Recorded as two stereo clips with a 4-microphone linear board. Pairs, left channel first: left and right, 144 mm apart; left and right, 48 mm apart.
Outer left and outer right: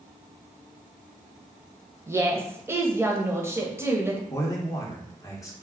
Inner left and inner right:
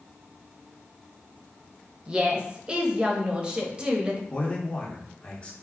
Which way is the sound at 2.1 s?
20° right (ahead or behind).